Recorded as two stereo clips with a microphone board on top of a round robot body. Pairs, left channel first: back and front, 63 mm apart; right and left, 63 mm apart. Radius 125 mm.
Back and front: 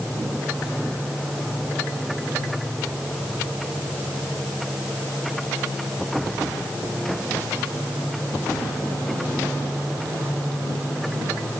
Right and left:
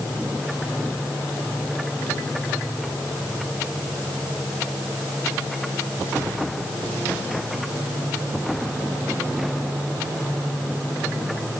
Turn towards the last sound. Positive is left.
No sound to turn to.